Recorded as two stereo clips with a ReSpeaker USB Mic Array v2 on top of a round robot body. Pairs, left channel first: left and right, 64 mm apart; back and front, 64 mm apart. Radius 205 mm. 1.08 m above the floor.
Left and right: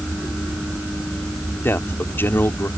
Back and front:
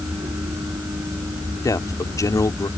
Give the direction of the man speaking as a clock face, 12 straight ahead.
7 o'clock.